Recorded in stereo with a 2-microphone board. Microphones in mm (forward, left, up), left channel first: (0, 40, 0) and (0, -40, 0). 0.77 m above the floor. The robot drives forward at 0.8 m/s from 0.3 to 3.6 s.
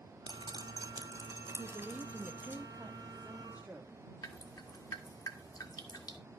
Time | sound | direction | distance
0.3 | dripping | 65° right (ahead or behind) | 0.9 m
1.6 | a woman speaking | 25° right (ahead or behind) | 1.1 m
4.2 | dripping | 50° left (ahead or behind) | 1.5 m